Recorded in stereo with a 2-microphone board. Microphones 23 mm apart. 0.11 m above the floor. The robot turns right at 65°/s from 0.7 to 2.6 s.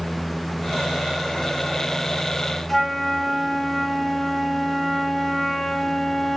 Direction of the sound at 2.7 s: 15° left (ahead or behind).